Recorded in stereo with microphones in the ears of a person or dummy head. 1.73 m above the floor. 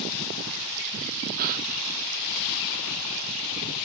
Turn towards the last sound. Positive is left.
turn(degrees=-45)  # may be behind; listen again after turning